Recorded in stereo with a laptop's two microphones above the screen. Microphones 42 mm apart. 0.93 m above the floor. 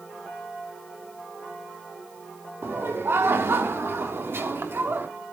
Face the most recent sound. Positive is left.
turn(degrees=-65)  # may be behind; listen again after turning